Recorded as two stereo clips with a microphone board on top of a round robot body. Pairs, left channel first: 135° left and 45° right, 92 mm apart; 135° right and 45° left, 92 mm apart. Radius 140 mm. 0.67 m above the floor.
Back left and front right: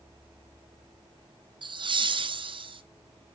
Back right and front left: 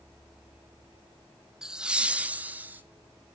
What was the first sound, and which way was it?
Laughter, 40° right.